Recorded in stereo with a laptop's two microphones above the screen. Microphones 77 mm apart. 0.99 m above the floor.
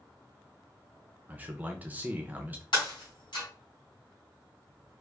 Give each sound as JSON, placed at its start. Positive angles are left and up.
{"t": 1.3, "sound": "a man speaking", "side_deg": -20, "distance_m": 0.6}
{"t": 2.7, "sound": "breaking glass", "side_deg": 75, "distance_m": 3.0}